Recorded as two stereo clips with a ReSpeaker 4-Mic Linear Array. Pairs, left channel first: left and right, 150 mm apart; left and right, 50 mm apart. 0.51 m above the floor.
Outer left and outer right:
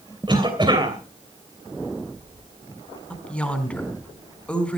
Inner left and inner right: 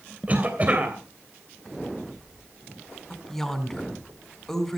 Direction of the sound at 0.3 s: 30° right (ahead or behind).